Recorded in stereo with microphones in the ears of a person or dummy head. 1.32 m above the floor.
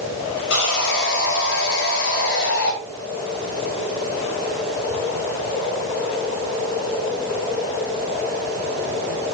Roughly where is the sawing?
Left.